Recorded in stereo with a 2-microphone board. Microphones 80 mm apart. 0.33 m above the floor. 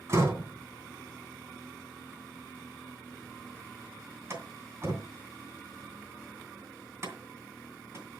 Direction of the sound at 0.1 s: 35° right (ahead or behind).